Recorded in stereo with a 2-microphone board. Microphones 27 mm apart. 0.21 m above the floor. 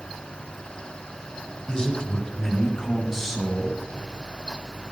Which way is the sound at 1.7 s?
30° left (ahead or behind).